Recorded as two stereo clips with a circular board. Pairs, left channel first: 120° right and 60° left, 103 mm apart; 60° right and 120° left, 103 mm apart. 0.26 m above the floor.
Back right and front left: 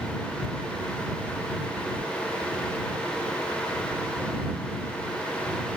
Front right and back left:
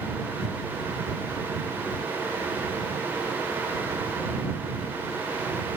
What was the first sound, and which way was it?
Only background noise.